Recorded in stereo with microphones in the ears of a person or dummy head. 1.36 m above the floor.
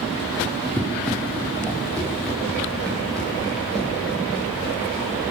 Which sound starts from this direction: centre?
Running footsteps, at 0.8 s.